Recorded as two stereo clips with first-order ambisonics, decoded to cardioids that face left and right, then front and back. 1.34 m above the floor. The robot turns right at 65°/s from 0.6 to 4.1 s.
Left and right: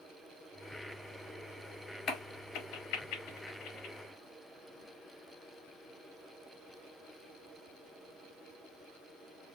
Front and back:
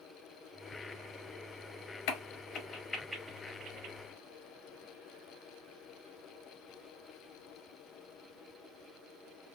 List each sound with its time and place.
2.1 s a crack: 25° left, 0.7 m; by 4.0 s 145° left, 0.7 m